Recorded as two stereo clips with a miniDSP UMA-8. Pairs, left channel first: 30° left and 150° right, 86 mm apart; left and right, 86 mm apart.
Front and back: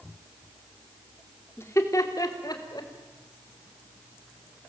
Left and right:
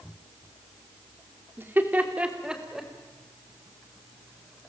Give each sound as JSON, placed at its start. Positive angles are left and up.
{"t": 1.6, "sound": "laughter", "azimuth_deg": -30, "distance_m": 2.5}